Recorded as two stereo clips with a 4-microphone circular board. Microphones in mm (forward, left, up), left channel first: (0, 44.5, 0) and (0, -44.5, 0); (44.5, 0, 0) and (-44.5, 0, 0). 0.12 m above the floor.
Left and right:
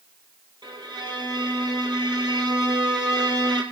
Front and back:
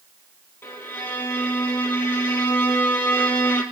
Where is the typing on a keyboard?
No typing on a keyboard in this recording.